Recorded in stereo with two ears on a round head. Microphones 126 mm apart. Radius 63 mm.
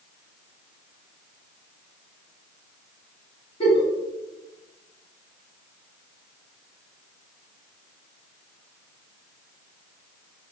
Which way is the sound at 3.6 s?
35° left (ahead or behind).